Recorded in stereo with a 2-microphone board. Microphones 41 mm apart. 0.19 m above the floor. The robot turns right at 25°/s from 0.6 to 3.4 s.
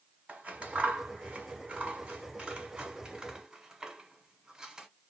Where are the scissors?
30° right (ahead or behind), 1.8 m; by 4.9 s 15° right (ahead or behind), 1.8 m.